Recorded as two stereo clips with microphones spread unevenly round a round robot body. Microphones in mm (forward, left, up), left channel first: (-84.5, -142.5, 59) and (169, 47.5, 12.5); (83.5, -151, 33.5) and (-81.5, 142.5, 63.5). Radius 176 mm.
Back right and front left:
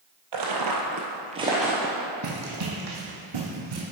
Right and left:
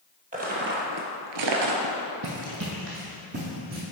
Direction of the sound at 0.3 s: 55° left.